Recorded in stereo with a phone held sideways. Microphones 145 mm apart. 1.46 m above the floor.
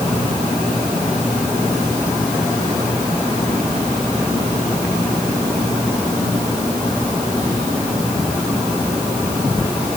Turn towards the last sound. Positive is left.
No sound to turn to.